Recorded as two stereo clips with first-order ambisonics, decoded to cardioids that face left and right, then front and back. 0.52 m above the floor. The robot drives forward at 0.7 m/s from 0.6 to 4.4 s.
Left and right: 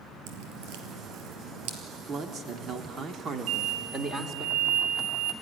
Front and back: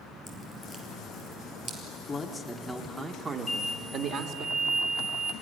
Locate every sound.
0.3 s dripping: 90° right, 3 m; by 1.8 s 105° right, 3.5 m
2.1 s a man speaking: 60° right, 1.3 m; by 4.5 s 155° right, 1.7 m
3.5 s an explosion: 75° right, 1.3 m; by 5.3 s 110° right, 1.4 m